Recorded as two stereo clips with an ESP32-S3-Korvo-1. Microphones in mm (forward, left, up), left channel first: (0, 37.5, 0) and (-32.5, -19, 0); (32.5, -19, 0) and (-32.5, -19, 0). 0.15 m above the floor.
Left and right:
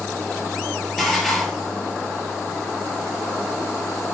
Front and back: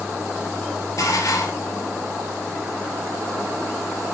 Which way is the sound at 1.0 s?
30° right.